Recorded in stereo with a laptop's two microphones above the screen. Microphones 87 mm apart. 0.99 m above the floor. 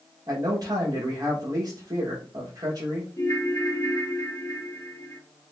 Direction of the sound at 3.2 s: 35° left (ahead or behind).